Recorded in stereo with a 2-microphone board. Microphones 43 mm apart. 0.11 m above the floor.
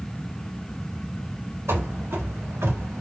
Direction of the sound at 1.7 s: 80° right.